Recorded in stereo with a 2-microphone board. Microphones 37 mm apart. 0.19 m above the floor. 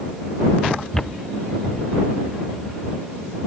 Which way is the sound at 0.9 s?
15° left (ahead or behind).